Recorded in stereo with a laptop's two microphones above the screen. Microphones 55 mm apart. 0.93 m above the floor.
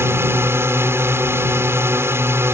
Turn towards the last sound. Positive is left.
turn(degrees=-45)  # may be behind; listen again after turning